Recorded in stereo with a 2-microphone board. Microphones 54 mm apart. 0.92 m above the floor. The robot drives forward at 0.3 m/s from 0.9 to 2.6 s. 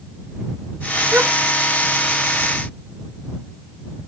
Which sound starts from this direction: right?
A gasp, at 1.1 s.